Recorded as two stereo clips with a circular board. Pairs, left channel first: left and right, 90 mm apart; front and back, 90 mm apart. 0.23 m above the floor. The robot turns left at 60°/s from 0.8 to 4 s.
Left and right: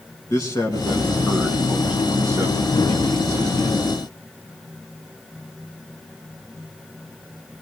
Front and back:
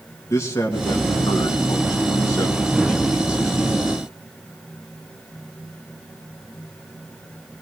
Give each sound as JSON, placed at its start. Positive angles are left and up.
{"t": 0.3, "sound": "a man speaking", "azimuth_deg": 50, "distance_m": 2.5}